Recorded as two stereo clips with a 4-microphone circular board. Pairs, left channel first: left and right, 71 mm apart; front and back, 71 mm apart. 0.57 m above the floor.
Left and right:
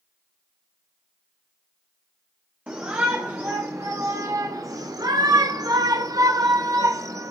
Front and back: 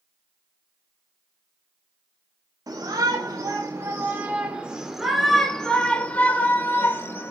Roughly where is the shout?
Behind.